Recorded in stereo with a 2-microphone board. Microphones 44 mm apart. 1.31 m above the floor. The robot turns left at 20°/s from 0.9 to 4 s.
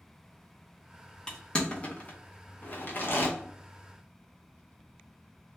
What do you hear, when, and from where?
1.3 s crushing: 20° left (ahead or behind), 0.7 m; by 3.3 s 50° left (ahead or behind), 0.7 m